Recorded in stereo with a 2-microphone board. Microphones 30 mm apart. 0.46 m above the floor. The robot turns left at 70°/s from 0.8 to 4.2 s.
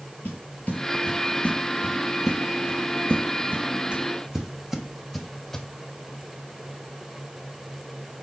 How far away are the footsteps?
About 3 m.